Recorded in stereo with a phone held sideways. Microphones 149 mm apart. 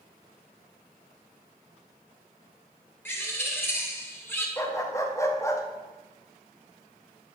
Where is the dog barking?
20° left (ahead or behind), 0.8 m.